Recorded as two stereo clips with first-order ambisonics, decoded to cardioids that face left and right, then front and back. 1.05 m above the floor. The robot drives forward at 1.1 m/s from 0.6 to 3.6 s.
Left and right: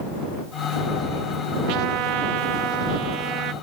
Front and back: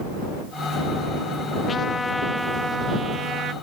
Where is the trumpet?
65° right; by 3.5 s 125° right.